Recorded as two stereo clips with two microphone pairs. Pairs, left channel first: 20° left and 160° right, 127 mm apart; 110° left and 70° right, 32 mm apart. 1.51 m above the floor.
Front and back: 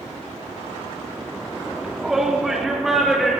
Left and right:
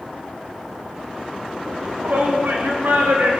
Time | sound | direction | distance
1.7 | a shout | 75° right | 4 m